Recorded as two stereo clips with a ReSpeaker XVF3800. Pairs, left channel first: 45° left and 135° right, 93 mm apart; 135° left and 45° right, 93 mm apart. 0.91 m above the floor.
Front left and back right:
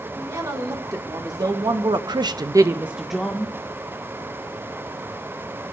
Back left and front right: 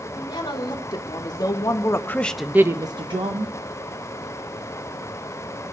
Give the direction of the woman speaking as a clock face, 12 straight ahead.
6 o'clock.